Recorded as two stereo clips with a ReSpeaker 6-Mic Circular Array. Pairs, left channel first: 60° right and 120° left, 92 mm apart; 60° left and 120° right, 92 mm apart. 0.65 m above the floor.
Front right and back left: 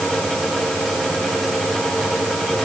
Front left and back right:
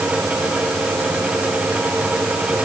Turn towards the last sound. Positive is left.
No sound to turn to.